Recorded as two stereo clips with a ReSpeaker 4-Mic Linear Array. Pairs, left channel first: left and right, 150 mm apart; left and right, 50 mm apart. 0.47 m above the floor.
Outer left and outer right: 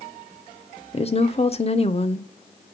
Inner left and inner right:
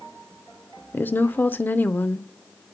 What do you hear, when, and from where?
0.9 s a woman speaking: 40° left (ahead or behind), 0.9 m